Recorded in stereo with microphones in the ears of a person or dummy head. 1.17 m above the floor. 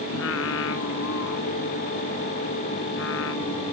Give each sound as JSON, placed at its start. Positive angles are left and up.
{"t": 0.1, "sound": "singing", "side_deg": 70}